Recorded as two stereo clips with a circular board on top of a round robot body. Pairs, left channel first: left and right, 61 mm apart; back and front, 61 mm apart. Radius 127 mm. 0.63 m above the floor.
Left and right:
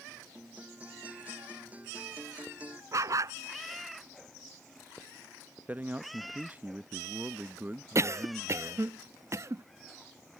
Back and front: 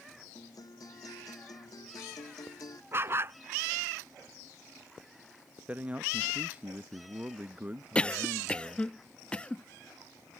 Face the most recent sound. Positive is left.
turn(degrees=-110)